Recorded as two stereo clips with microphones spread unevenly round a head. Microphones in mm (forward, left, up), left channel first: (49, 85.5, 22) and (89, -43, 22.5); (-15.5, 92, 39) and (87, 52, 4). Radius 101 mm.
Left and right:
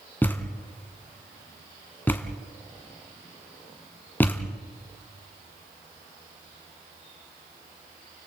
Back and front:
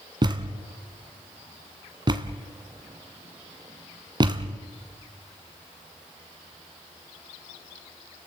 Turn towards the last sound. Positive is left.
turn(degrees=35)